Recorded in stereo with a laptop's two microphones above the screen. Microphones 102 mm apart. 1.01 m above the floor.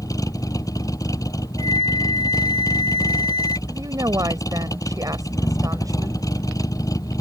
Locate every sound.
0.0 s a vehicle: 35° left (ahead or behind)
1.6 s a flute: 70° right (ahead or behind)
3.7 s a woman speaking: 35° right (ahead or behind)